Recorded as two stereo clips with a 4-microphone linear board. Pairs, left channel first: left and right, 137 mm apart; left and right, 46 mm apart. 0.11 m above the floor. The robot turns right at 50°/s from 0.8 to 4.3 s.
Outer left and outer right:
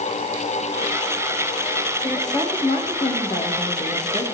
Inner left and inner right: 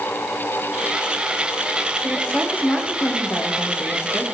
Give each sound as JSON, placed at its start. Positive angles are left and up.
{"t": 2.0, "sound": "a woman speaking", "azimuth_deg": 15, "distance_m": 5.0}